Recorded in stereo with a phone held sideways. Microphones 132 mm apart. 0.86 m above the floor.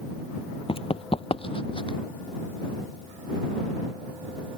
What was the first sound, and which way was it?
Running footsteps, 45° left (ahead or behind).